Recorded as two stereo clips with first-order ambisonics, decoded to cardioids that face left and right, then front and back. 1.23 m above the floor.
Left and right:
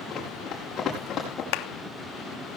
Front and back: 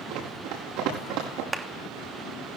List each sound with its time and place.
0.1 s running footsteps: 155° left, 6.5 m; by 1.4 s 150° left, 6 m
1.5 s a clap: 105° left, 1.4 m